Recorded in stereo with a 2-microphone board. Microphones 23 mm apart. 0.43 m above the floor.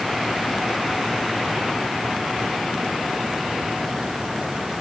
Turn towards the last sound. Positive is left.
No sound to turn to.